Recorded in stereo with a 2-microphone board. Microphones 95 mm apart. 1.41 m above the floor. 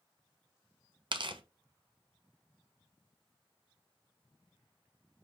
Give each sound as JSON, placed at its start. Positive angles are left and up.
{"t": 1.1, "sound": "tearing paper", "side_deg": -55, "distance_m": 0.5}